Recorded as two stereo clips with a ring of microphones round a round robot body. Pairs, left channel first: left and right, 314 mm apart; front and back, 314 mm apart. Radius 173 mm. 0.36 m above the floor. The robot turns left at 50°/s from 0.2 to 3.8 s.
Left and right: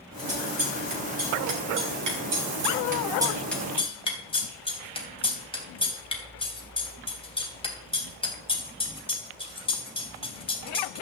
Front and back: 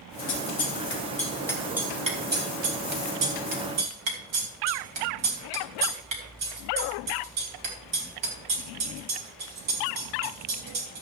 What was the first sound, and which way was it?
Scissors, 20° right.